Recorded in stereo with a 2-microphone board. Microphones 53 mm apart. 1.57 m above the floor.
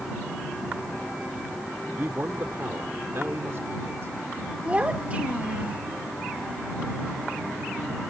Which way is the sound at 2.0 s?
50° right (ahead or behind).